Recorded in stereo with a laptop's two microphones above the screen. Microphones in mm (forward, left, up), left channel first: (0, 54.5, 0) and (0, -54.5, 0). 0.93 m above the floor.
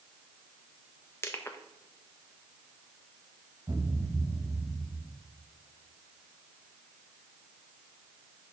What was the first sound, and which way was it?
Crushing, 25° left (ahead or behind).